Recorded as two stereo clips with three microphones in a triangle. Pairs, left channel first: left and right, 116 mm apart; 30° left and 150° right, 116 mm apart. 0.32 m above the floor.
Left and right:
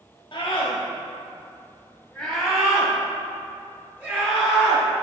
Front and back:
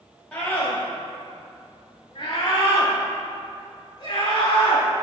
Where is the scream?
105° left, 1.5 m; by 5.0 s 20° right, 4 m.